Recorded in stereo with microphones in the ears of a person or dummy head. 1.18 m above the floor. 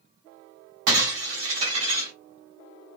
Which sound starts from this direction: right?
Breaking glass, at 0.9 s.